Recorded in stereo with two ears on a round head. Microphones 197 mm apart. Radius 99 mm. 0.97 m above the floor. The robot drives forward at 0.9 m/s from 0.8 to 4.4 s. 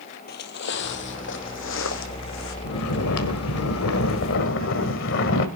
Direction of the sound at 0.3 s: 45° left (ahead or behind).